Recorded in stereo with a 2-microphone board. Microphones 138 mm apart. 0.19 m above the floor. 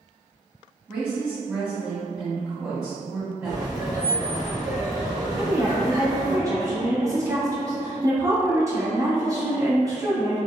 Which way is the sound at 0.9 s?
10° right (ahead or behind).